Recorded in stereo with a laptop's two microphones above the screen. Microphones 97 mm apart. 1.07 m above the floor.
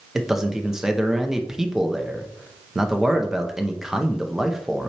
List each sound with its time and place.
0.1 s a man speaking: 5° right (ahead or behind), 0.7 m